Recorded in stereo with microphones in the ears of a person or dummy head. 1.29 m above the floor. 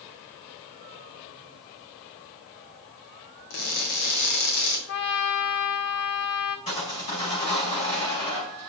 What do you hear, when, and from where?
3.5 s crushing: 60° left (ahead or behind), 1.8 m
4.9 s a trumpet: 50° left (ahead or behind), 0.9 m
6.7 s sawing: 30° left (ahead or behind), 4.5 m